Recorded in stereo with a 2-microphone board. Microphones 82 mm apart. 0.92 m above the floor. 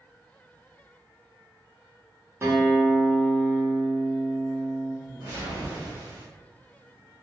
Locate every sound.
2.4 s a guitar: 30° right (ahead or behind), 0.8 m
5.0 s a whoosh: 40° right (ahead or behind), 1.1 m